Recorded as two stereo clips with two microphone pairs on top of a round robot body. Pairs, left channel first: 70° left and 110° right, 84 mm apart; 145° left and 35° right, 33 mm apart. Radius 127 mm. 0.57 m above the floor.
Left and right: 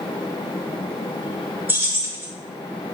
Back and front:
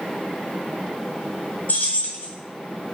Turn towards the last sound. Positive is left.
turn(degrees=-175)